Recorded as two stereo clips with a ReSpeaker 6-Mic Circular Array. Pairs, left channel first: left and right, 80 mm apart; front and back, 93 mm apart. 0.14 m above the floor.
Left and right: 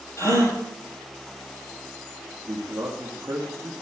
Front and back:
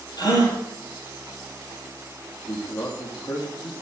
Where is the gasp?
40° left, 5 m.